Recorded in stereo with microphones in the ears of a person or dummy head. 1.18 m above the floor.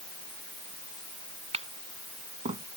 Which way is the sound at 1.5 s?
30° right (ahead or behind).